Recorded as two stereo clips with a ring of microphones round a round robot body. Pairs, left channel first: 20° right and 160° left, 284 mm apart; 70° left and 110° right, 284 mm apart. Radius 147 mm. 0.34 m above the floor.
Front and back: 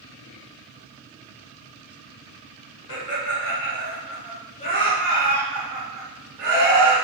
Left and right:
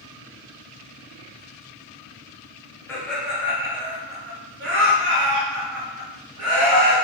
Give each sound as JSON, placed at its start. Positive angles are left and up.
{"t": 2.9, "sound": "laughter", "azimuth_deg": -15, "distance_m": 1.3}